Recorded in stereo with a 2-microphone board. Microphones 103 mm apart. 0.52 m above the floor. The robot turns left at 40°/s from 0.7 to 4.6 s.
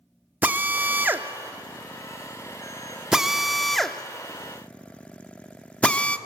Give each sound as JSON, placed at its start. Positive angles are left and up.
{"t": 0.4, "sound": "a drill", "side_deg": -20, "distance_m": 0.7}